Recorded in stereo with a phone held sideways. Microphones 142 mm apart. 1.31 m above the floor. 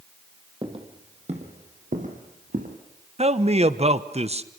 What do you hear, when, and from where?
0.6 s footsteps: 35° right (ahead or behind), 2.5 m; by 2.8 s 70° right (ahead or behind), 3.5 m
3.2 s a man speaking: 45° right (ahead or behind), 1.1 m